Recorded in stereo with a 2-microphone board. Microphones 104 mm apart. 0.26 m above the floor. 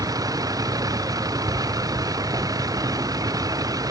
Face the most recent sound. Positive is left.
turn(degrees=-35)  # may be behind; listen again after turning